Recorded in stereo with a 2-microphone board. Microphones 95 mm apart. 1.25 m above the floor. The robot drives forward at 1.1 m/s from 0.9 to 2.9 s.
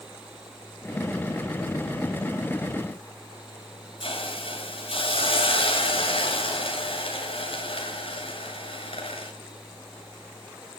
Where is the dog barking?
I don't hear a dog barking.